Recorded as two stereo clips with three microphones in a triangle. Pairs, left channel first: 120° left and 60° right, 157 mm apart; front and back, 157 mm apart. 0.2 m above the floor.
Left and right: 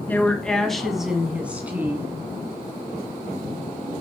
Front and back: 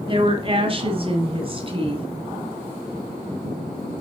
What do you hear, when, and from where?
0.1 s a woman speaking: 170° right, 1.3 m; by 2.1 s 135° right, 1.9 m